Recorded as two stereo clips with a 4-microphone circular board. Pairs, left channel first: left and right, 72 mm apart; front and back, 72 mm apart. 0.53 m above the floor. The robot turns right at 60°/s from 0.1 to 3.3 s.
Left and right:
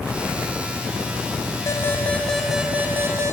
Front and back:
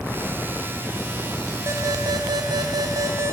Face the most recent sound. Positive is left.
turn(degrees=-130)